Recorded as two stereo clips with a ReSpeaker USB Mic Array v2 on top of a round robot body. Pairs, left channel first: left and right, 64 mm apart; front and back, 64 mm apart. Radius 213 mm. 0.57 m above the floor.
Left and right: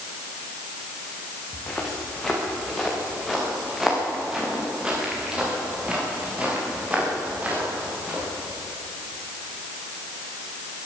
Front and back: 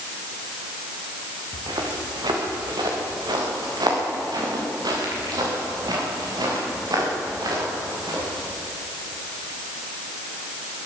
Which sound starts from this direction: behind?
Footsteps, at 1.5 s.